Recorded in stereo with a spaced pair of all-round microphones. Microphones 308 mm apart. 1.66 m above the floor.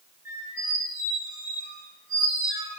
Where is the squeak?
25° left (ahead or behind), 1.0 m.